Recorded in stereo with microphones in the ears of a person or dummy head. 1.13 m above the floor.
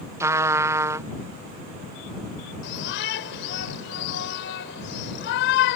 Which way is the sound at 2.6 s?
70° left (ahead or behind).